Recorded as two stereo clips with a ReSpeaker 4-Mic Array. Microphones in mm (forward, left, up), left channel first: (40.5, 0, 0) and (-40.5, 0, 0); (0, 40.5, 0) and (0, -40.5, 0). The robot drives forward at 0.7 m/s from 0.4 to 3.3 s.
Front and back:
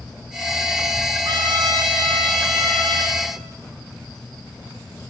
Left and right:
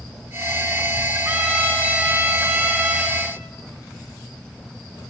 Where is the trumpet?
155° right, 1.7 m; by 3.2 s 165° right, 3 m.